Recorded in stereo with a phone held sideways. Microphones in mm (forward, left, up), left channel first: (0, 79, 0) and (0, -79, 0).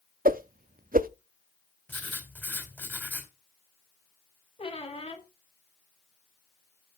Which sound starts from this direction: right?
A whoosh, at 0.2 s.